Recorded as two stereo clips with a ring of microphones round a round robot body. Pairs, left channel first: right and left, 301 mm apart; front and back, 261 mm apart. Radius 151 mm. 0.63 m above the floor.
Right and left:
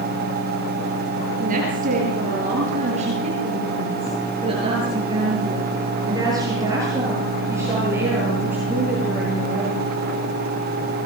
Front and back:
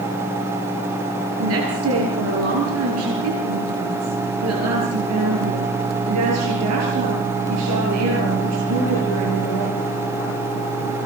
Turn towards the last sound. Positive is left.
turn(degrees=175)